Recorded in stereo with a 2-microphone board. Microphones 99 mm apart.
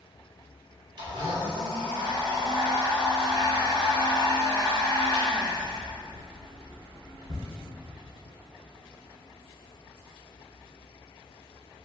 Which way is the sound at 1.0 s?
50° right (ahead or behind).